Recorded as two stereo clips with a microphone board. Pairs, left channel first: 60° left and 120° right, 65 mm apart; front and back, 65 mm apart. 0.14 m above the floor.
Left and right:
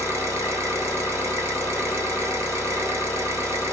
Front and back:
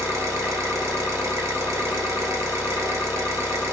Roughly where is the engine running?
Behind right.